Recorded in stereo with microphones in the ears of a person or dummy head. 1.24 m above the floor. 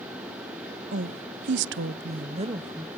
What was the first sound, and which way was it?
A woman speaking, 50° right (ahead or behind).